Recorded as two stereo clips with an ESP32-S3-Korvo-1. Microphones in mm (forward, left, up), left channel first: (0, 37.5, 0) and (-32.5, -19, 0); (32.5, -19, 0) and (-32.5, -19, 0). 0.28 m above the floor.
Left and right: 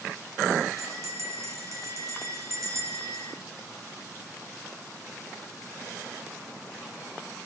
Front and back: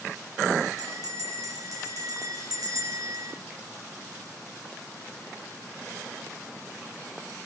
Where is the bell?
160° right, 7.5 m.